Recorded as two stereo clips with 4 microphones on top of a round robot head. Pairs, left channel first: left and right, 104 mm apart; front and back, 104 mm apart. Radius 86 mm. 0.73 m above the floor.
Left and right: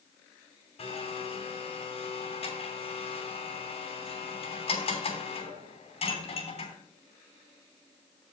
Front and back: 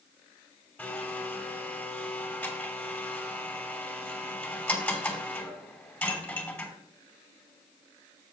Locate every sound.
0.8 s a blender: 75° left, 2.5 m